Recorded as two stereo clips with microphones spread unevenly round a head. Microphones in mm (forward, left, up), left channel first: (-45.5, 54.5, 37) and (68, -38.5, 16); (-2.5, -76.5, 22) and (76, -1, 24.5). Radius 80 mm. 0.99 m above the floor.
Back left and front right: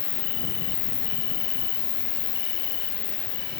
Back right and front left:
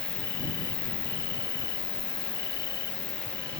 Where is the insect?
160° left.